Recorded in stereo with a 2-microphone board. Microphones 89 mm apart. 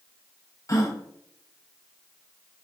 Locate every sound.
0.7 s a gasp: 35° left (ahead or behind), 0.7 m